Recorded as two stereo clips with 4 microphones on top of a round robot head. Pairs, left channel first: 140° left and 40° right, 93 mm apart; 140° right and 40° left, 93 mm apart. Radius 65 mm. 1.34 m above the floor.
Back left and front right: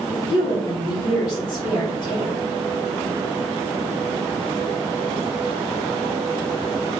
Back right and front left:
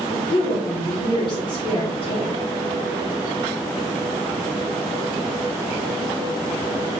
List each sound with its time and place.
0.1 s a woman speaking: 170° right, 1.2 m